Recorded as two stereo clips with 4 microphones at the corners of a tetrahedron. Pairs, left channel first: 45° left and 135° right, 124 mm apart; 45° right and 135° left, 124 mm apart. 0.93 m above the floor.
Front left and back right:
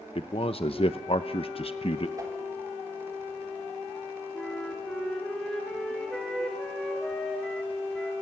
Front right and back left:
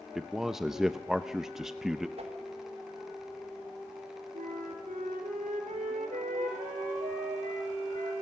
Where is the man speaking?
50° left, 0.7 m.